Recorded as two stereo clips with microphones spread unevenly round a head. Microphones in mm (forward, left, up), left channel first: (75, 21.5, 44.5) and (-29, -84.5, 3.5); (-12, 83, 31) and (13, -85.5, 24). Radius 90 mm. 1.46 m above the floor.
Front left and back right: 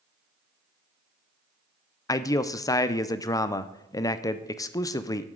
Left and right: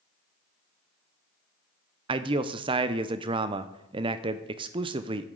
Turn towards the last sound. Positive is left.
turn(degrees=-20)